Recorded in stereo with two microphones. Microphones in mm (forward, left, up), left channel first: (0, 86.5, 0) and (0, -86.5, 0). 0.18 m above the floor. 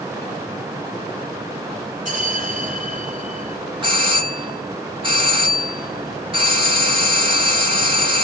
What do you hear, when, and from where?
2.0 s a bell: 50° right (ahead or behind), 3 m
3.8 s a doorbell: 30° right (ahead or behind), 3 m